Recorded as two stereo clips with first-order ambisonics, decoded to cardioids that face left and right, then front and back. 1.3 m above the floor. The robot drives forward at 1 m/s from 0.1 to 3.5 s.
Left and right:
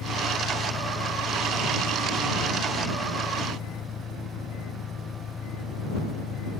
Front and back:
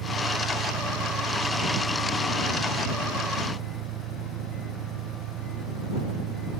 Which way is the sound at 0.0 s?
150° left.